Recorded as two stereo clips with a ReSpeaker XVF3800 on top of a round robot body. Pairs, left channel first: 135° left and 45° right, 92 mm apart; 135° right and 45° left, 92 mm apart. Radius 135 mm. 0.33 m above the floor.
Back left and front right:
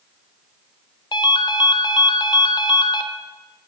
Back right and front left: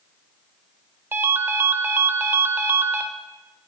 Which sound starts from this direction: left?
A ringtone, at 1.1 s.